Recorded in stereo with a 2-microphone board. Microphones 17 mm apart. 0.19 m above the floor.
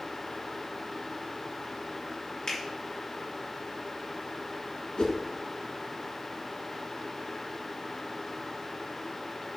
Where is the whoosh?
55° left (ahead or behind), 1.2 m.